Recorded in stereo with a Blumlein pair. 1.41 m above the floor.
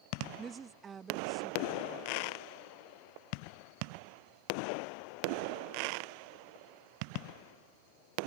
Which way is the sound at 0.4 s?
20° right.